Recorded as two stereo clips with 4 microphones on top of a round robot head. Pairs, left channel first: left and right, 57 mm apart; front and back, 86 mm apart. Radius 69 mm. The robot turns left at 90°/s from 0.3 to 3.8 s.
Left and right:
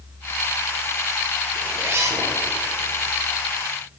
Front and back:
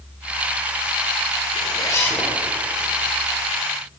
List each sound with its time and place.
1.5 s a zipper: 20° right, 1.1 m; by 2.3 s 90° right, 1.1 m